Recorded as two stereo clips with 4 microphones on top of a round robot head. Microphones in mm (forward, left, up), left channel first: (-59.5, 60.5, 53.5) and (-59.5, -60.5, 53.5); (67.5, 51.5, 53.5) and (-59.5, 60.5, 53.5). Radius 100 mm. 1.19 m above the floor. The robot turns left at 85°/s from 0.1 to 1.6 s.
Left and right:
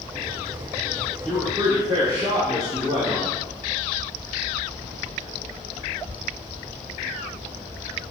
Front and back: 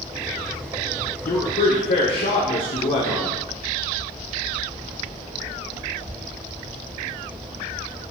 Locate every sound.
1.2 s a man speaking: 10° left, 0.5 m; by 3.4 s 20° right, 0.5 m